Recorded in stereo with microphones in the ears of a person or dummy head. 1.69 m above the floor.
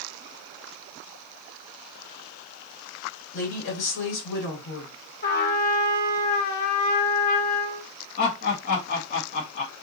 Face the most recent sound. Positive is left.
turn(degrees=50)  # may be behind; listen again after turning